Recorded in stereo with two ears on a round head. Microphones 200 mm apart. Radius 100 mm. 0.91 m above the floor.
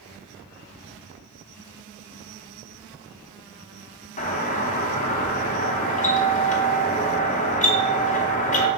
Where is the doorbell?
35° left (ahead or behind), 0.8 m.